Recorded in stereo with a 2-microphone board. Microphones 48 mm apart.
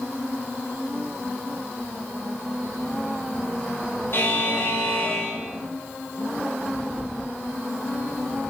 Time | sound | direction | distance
4.1 | a buzzer | 50° left (ahead or behind) | 6 m